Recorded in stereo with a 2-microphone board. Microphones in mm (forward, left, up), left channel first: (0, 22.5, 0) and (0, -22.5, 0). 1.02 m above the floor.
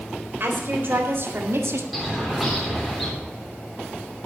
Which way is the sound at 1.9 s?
Centre (ahead or behind).